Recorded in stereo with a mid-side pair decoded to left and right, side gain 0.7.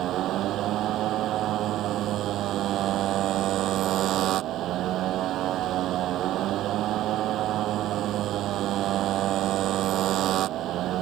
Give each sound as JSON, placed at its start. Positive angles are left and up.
{"t": 0.0, "sound": "a motorcycle", "azimuth_deg": -50}